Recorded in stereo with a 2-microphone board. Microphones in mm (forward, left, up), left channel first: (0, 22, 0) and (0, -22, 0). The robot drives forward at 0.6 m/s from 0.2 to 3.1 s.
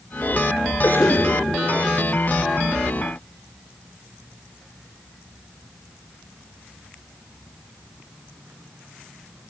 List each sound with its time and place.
0.8 s a cough: 60° left (ahead or behind), 6 m; by 1.3 s 55° left (ahead or behind), 6 m